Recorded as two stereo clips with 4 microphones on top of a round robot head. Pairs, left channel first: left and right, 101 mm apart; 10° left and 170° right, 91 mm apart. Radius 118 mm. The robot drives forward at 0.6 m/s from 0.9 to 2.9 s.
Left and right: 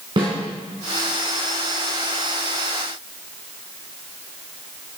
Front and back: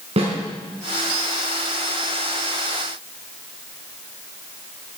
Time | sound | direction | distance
0.2 | a snare drum | 140° right | 4 m